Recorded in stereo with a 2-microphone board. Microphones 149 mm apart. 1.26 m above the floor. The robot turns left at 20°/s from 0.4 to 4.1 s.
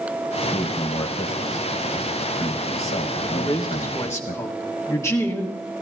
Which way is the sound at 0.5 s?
145° left.